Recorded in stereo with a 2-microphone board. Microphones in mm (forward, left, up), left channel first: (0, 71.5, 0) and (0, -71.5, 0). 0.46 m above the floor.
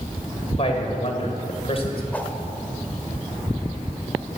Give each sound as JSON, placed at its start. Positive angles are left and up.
{"t": 0.6, "sound": "a man speaking", "side_deg": 45, "distance_m": 2.5}
{"t": 2.1, "sound": "a whoosh", "side_deg": 10, "distance_m": 1.4}